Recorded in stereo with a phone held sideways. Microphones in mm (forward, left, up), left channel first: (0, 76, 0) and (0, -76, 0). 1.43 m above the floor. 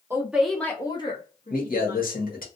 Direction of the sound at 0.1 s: 15° right (ahead or behind).